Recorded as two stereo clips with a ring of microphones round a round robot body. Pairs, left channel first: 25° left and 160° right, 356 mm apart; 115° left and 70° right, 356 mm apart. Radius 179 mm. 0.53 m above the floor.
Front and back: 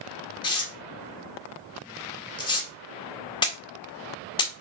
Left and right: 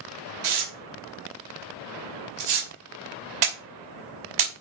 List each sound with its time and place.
0.4 s tearing paper: 55° right, 2.5 m